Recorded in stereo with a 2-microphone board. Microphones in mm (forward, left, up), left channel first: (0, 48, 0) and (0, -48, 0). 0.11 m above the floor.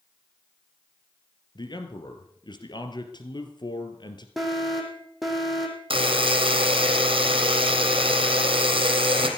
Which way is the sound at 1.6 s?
50° left (ahead or behind).